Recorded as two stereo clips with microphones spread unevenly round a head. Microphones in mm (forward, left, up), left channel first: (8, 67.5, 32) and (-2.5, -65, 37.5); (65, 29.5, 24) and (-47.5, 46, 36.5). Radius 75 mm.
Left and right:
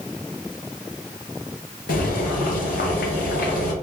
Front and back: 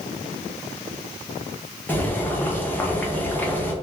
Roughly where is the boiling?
Ahead left.